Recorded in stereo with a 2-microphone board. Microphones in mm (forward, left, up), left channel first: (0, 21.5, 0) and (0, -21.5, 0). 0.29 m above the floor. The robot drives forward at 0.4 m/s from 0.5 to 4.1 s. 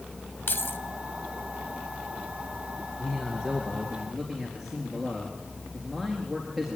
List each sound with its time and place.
0.5 s keys jangling: 55° left (ahead or behind), 1.0 m
3.0 s a man speaking: centre (ahead or behind), 4 m